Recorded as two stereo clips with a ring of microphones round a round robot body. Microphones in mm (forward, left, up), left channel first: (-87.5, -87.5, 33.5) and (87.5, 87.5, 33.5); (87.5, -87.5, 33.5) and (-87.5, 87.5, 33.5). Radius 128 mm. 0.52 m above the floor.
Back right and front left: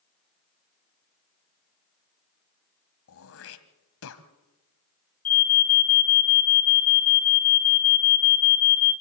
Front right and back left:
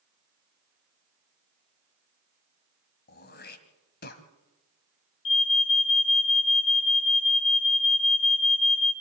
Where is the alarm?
80° right, 3.5 m.